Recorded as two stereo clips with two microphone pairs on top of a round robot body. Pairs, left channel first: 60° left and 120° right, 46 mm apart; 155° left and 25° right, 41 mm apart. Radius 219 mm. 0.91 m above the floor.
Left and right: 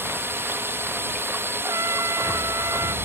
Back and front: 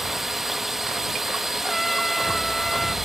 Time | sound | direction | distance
0.0 | a drone | 110° right | ?
1.6 | a trumpet | 120° right | ?